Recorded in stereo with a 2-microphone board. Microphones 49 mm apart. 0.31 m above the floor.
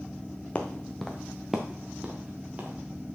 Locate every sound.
0.6 s footsteps: 25° left (ahead or behind), 1.5 m; by 2.8 s 30° right (ahead or behind), 3 m